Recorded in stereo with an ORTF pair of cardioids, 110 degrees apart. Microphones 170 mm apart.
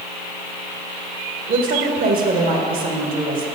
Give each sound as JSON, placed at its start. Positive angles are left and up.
{"t": 1.5, "sound": "a woman speaking", "azimuth_deg": -65, "distance_m": 1.5}